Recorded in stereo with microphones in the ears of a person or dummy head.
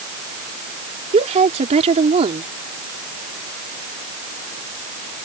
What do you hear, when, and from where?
1.1 s a woman speaking: 35° right (ahead or behind)